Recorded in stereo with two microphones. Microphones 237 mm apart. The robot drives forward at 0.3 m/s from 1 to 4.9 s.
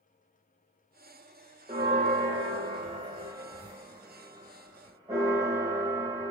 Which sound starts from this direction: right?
A bell, at 1.7 s.